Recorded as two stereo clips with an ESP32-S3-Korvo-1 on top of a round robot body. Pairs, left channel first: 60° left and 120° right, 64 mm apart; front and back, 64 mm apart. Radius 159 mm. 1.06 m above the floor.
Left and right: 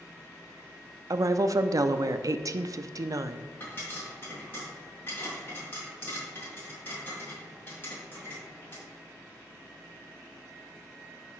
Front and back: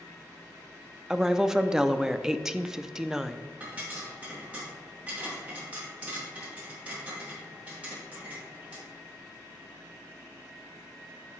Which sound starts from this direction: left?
A pop, at 3.6 s.